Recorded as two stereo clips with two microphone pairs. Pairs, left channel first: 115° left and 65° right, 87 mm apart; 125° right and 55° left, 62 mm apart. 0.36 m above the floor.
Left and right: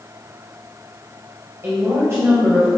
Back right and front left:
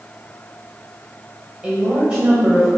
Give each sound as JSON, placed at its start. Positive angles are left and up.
{"t": 1.6, "sound": "a woman speaking", "azimuth_deg": -15, "distance_m": 1.3}